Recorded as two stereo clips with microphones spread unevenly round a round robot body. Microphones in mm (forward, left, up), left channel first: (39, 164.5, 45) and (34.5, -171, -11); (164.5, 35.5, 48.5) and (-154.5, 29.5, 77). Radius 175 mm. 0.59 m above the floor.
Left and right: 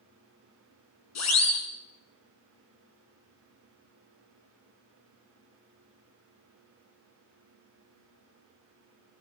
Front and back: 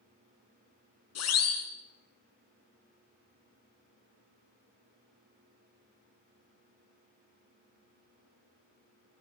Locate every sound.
1.1 s a siren: 45° left, 9 m